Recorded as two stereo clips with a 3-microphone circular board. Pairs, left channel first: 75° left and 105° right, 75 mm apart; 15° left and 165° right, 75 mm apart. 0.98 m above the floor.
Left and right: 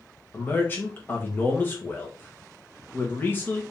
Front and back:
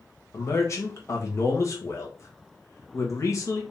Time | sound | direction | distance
0.3 | a man speaking | 25° left | 1.1 m